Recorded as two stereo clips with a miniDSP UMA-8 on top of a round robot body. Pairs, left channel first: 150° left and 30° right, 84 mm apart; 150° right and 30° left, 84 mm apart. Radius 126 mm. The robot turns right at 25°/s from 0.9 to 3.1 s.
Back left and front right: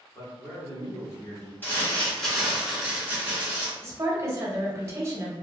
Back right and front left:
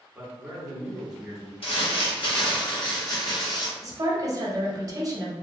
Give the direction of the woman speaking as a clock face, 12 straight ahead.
12 o'clock.